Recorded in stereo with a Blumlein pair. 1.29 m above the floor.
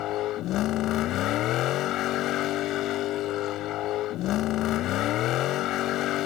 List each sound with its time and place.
0.0 s a vehicle: 35° left